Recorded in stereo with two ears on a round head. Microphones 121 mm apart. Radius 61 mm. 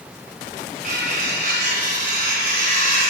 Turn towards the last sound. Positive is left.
turn(degrees=-80)